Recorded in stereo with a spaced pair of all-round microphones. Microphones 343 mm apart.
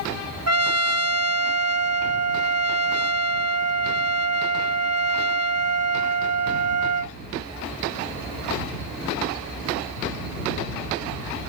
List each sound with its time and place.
0.5 s a trumpet: 45° right (ahead or behind)